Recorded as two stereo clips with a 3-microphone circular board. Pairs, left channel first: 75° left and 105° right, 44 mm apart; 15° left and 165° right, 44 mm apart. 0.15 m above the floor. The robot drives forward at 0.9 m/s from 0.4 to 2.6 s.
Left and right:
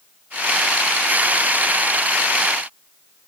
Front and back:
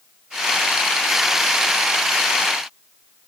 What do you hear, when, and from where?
Only background noise.